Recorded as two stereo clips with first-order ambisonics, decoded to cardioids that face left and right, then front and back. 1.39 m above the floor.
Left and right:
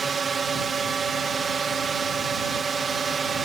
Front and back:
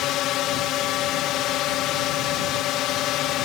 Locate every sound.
0.0 s a drone: 25° right